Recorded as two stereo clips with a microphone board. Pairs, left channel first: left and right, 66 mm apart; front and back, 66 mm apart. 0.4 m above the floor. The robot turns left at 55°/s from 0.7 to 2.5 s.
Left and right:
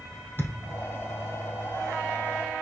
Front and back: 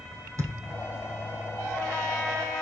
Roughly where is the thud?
Behind left.